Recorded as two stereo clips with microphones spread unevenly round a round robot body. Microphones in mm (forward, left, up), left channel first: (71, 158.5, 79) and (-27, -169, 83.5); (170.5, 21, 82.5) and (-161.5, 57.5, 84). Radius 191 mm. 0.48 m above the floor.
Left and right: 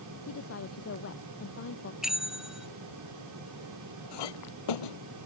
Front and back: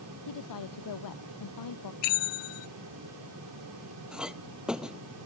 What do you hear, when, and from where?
0.3 s a woman speaking: 20° left
2.0 s a bell: 20° right
4.1 s a clink: 85° left